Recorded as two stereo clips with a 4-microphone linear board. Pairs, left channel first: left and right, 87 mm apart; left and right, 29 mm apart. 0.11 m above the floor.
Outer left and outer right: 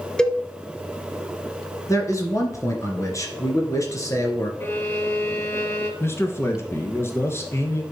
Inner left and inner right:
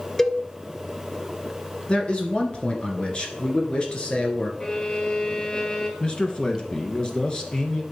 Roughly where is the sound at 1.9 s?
Left.